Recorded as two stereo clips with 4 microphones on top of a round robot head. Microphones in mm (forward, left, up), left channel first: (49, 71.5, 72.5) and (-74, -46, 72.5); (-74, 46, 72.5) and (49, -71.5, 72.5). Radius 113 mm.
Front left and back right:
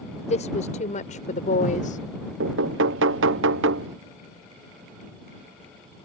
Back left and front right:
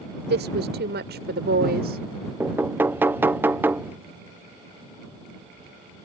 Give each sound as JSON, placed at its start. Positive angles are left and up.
{"t": 0.2, "sound": "a woman speaking", "azimuth_deg": -10}
{"t": 2.4, "sound": "knocking", "azimuth_deg": -120}